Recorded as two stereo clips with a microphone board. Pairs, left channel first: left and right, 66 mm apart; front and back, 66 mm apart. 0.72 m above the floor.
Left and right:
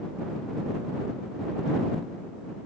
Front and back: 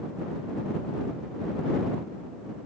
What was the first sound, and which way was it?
Only background noise.